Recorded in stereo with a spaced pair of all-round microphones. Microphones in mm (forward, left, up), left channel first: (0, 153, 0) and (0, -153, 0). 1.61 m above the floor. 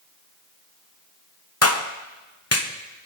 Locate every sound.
1.6 s a clap: 50° left (ahead or behind), 1.0 m